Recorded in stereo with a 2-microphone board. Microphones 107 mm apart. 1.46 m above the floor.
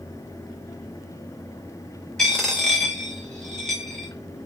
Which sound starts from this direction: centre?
A dropped coin, at 2.2 s.